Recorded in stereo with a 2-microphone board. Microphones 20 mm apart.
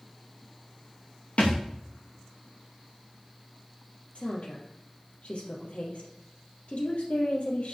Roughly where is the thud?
Left.